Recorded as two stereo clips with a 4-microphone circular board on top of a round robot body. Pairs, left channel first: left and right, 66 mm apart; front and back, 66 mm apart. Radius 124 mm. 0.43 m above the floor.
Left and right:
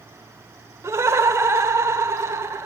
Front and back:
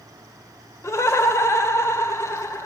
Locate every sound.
0.8 s laughter: 45° right, 1.6 m